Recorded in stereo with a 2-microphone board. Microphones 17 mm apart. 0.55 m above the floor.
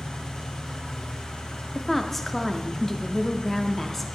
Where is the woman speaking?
15° left (ahead or behind), 0.6 m.